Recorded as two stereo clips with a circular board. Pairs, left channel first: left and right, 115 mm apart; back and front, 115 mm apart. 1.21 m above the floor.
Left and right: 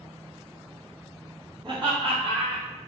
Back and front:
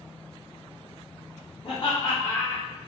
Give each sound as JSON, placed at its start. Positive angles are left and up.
{"t": 1.6, "sound": "laughter", "azimuth_deg": -140, "distance_m": 1.6}